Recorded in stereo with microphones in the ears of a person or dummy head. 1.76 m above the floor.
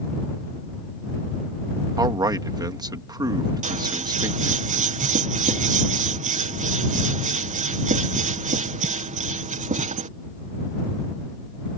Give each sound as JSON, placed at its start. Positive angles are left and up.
{"t": 2.0, "sound": "a man speaking", "side_deg": -25}
{"t": 3.6, "sound": "scissors", "side_deg": -40}